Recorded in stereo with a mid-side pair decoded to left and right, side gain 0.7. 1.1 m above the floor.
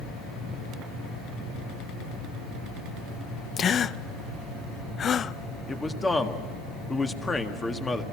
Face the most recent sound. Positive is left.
turn(degrees=15)